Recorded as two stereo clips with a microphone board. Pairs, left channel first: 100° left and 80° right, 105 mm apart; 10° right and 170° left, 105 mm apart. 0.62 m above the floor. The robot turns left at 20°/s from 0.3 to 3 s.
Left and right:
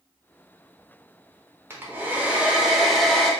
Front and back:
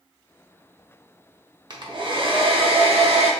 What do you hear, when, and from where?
1.7 s a hair dryer: 145° right, 0.6 m; by 3.3 s 170° right, 0.6 m